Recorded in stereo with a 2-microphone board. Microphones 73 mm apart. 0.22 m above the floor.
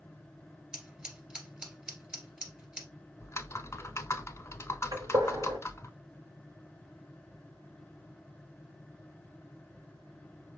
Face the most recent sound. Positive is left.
turn(degrees=-60)  # may be behind; listen again after turning